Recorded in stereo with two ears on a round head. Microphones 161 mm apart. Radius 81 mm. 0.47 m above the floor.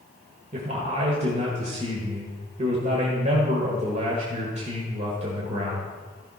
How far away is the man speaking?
About 1.6 m.